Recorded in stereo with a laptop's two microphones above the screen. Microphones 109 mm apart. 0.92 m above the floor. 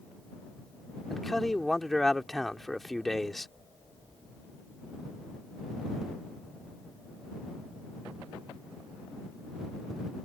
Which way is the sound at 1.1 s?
Centre (ahead or behind).